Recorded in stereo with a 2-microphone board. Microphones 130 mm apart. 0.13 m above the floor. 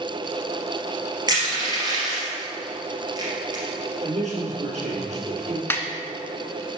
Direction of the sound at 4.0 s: 65° right (ahead or behind).